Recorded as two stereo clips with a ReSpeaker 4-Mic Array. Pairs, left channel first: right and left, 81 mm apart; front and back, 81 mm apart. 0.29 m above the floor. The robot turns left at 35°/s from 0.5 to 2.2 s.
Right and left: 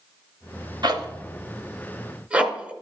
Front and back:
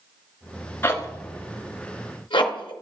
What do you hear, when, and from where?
0.8 s a zipper: 65° left, 0.9 m; by 2.7 s 15° left, 0.9 m